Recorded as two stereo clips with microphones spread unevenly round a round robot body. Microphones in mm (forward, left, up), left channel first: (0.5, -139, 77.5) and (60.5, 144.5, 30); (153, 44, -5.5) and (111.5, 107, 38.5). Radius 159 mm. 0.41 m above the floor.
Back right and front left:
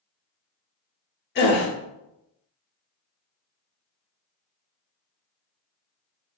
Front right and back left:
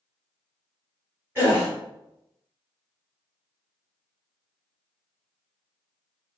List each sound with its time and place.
1.4 s a gasp: 130° right, 0.9 m